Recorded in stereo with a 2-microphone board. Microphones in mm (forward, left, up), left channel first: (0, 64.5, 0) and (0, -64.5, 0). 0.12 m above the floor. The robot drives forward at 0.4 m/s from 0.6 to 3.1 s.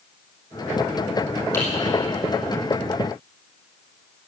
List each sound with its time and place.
1.5 s typing on a keyboard: 20° left (ahead or behind), 5 m